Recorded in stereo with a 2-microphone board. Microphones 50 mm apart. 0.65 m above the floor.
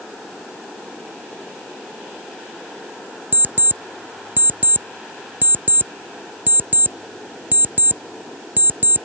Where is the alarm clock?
40° right (ahead or behind).